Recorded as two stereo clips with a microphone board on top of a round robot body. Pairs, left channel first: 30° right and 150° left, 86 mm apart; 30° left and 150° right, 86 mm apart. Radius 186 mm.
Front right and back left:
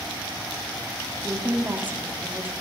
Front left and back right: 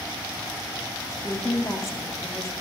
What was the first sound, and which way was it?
A woman speaking, 80° left.